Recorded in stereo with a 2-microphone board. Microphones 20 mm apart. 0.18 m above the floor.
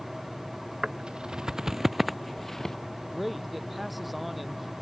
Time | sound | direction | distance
0.8 | footsteps | 55° right (ahead or behind) | ?
3.0 | a man speaking | 5° right (ahead or behind) | ?